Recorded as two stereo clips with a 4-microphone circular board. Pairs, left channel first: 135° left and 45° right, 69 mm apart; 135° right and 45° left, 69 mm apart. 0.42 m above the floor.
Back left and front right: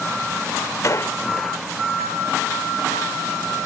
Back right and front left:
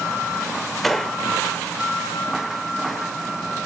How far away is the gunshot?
About 0.6 m.